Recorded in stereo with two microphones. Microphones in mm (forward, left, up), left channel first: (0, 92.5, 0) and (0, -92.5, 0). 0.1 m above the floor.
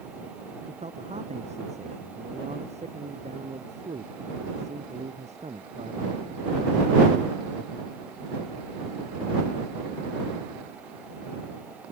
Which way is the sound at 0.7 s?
40° right (ahead or behind).